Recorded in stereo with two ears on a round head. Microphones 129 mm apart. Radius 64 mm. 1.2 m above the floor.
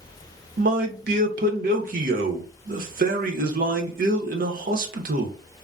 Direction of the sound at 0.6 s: 60° right (ahead or behind).